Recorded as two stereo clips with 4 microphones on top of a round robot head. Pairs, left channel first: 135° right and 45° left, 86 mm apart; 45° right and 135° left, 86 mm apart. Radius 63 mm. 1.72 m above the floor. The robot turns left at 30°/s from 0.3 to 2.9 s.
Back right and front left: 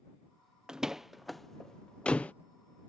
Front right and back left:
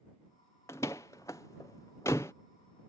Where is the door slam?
25° right; by 2.3 s 75° right.